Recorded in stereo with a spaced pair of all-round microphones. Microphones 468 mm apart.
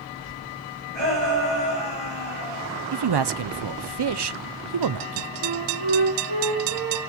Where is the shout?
60° right (ahead or behind), 10 m.